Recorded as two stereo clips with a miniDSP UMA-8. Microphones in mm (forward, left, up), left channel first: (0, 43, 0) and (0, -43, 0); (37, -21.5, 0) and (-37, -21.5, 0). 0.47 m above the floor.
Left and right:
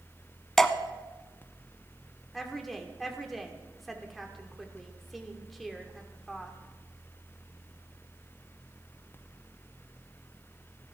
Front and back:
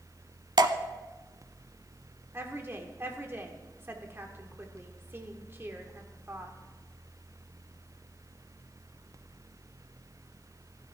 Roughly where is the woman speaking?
Behind.